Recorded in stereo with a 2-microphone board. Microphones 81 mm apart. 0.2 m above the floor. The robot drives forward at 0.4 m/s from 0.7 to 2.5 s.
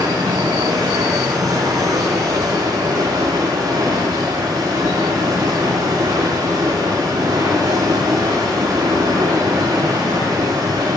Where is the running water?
65° right (ahead or behind), 7.5 m; by 11.0 s 60° right (ahead or behind), 8 m.